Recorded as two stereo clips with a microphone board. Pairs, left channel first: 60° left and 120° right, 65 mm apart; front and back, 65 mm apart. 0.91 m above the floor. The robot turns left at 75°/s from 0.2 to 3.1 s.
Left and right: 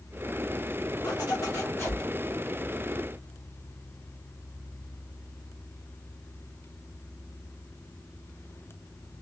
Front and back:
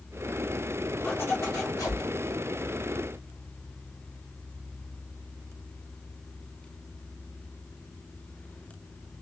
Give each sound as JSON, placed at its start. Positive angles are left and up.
{"t": 1.0, "sound": "a zipper", "azimuth_deg": 70, "distance_m": 1.0}